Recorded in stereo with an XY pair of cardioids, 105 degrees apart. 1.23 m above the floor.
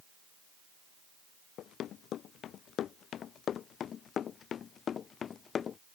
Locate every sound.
1.6 s running footsteps: 70° left; by 5.8 s 45° left